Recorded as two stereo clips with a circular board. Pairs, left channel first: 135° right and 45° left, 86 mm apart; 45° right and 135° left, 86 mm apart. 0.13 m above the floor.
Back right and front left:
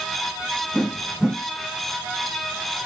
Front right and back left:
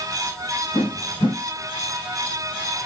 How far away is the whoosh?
About 1.6 m.